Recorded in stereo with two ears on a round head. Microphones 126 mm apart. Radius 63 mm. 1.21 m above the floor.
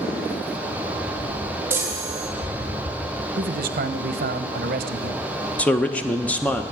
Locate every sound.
1.7 s a chime: 15° right (ahead or behind), 1.9 m
3.4 s a man speaking: 65° right (ahead or behind), 0.7 m
5.6 s a man speaking: 10° left (ahead or behind), 0.6 m